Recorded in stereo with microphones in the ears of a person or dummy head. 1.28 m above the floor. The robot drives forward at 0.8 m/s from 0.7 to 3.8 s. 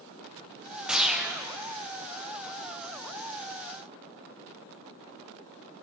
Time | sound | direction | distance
0.9 | a whoosh | centre (ahead or behind) | 0.8 m